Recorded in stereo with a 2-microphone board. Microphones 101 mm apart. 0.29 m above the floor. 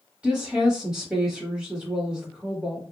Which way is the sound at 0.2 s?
10° right (ahead or behind).